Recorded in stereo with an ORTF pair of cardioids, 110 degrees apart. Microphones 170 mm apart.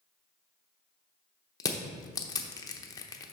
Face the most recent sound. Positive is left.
turn(degrees=20)